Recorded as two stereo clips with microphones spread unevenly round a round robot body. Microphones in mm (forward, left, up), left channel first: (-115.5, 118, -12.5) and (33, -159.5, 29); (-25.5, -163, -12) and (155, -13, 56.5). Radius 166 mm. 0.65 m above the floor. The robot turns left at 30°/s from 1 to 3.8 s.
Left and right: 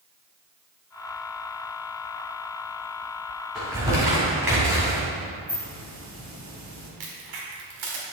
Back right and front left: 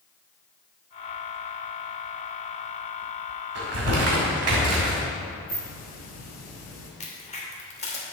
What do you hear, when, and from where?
3.5 s crumpling: 30° left, 2.5 m; by 5.0 s 20° left, 2.5 m
5.5 s a hiss: 130° right, 2.5 m
7.0 s a crack: 85° right, 2 m